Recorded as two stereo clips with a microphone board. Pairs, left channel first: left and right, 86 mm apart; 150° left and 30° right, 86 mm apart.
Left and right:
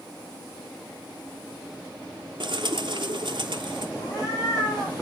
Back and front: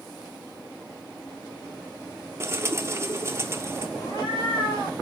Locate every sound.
2.4 s a bird: 85° right, 0.6 m
4.0 s a cat meowing: 135° left, 2.5 m